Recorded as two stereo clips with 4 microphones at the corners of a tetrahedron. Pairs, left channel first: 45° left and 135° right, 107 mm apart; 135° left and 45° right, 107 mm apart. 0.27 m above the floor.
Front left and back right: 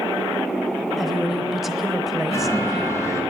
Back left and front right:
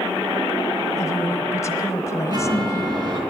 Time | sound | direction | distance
1.0 | a woman speaking | 140° left | 1.1 m
2.3 | a chime | 10° right | 2.5 m